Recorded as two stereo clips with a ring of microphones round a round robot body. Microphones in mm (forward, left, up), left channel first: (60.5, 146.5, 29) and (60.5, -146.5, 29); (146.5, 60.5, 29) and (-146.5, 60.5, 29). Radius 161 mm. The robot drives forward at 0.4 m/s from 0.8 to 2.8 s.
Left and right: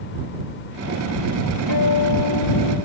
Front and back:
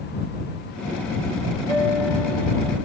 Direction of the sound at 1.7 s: 80° right.